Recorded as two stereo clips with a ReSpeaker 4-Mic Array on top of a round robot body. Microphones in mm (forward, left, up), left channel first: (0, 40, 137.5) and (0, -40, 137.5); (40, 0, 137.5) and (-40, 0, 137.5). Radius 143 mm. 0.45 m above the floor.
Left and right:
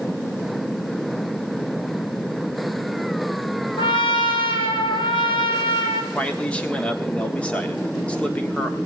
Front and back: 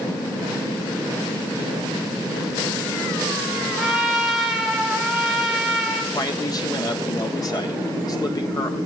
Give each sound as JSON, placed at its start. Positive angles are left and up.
{"t": 3.8, "sound": "a trumpet", "azimuth_deg": 95, "distance_m": 2.5}
{"t": 6.1, "sound": "a man speaking", "azimuth_deg": 20, "distance_m": 1.6}